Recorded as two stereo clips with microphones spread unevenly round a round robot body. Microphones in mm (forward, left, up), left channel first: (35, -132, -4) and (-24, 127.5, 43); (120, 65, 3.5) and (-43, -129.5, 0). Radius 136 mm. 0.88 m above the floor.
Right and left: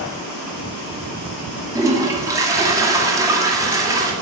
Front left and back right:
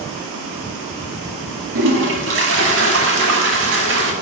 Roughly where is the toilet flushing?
Behind.